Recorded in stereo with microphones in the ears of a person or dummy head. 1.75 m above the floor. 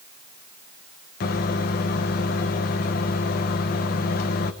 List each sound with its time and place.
1.2 s a microwave: 40° left (ahead or behind), 1.0 m